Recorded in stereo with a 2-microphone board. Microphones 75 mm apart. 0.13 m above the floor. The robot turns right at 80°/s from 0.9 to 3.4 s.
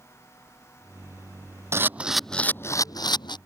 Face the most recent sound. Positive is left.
turn(degrees=95)